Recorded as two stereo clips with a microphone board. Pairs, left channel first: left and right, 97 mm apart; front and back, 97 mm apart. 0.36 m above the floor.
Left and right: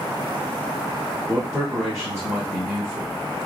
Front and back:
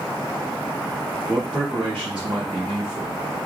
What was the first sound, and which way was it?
A man speaking, 110° right.